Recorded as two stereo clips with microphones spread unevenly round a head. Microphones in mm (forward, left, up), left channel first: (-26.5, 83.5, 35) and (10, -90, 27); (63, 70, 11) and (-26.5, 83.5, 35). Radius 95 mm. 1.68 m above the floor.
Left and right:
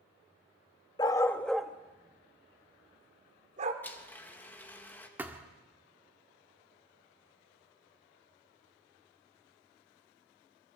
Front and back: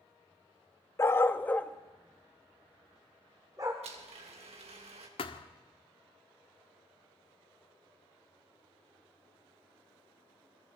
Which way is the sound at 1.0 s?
55° left.